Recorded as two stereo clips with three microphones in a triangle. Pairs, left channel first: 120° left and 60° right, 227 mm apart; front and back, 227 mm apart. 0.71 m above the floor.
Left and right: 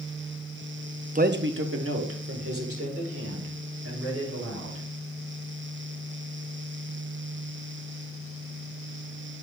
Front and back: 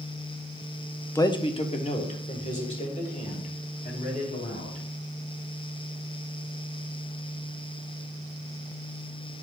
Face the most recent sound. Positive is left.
turn(degrees=-55)